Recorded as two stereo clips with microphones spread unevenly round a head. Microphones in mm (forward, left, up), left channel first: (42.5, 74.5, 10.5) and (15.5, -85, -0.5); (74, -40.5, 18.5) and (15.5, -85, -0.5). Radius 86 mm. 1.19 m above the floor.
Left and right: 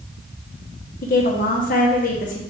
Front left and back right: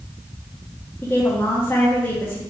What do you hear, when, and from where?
1.0 s a woman speaking: 120° left, 0.9 m